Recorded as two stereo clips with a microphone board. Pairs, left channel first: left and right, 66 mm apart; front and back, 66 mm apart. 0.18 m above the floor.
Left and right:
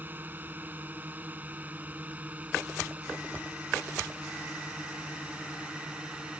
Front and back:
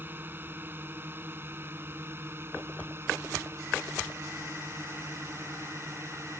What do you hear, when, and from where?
0.0 s a drone: 135° right; by 6.4 s 160° right